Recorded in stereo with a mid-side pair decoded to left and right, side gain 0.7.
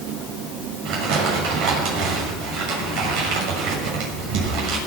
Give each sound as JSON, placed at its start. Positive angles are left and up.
{"t": 0.8, "sound": "crumpling", "azimuth_deg": -65, "distance_m": 6.5}